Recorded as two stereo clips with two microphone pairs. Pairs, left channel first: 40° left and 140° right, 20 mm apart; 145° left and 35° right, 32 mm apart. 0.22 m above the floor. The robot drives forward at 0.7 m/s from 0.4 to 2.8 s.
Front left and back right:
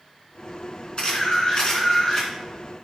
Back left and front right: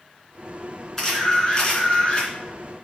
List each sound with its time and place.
1.0 s a camera shutter: 70° left, 3 m; by 2.3 s 95° left, 3 m